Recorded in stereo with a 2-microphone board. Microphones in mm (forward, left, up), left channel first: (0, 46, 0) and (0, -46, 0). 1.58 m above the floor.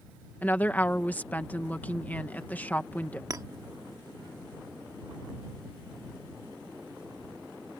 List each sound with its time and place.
0.4 s a woman speaking: 20° left (ahead or behind)
3.3 s a clink: 40° right (ahead or behind)